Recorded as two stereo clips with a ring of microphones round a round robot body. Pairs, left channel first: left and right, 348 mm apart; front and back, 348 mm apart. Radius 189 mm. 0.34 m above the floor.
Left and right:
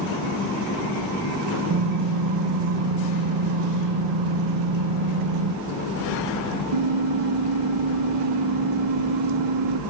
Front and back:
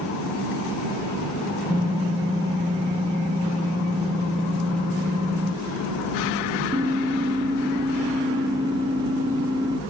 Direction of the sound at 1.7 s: 100° right.